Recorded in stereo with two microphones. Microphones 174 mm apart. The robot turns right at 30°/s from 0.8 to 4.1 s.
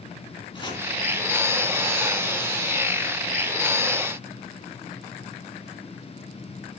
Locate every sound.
0.5 s chopping: 30° left (ahead or behind), 3 m